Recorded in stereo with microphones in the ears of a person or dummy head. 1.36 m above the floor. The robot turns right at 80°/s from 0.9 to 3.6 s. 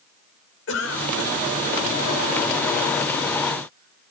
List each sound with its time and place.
0.7 s a cough: 85° left, 5 m; by 4.1 s 50° right (ahead or behind), 5 m